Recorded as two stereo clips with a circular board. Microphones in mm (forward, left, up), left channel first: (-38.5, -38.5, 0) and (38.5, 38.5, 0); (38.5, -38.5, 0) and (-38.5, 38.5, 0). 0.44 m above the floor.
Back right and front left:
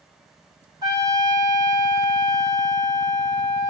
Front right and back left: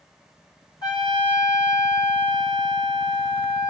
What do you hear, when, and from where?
0.8 s a trumpet: straight ahead, 3 m